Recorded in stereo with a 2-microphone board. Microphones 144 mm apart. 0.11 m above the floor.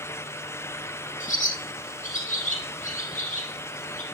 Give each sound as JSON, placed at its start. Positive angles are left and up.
{"t": 1.2, "sound": "a bird", "side_deg": 60, "distance_m": 5.0}